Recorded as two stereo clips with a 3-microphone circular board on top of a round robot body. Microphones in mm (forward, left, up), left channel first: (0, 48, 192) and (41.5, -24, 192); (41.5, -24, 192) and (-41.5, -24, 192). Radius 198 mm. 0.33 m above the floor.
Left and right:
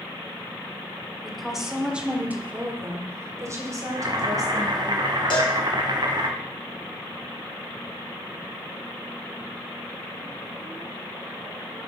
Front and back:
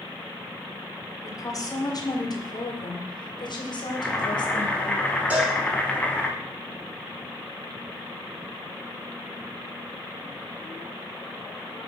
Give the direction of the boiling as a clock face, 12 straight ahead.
2 o'clock.